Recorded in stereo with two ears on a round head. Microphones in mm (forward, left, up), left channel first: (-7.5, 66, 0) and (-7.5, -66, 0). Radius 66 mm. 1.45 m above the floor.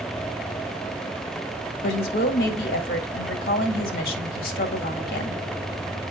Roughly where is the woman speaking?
Left.